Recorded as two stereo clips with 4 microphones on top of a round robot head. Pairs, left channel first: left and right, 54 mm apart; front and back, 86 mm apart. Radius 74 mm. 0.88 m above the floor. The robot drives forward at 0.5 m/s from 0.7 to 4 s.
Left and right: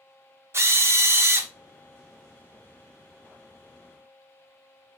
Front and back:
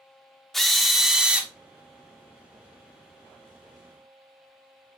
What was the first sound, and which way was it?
A drill, 90° right.